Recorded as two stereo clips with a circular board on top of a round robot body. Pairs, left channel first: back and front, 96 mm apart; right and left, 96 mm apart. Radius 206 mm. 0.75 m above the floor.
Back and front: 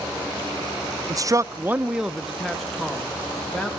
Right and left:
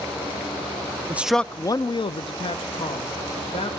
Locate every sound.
1.1 s a man speaking: 30° left, 0.6 m; by 3.7 s 100° right, 1.9 m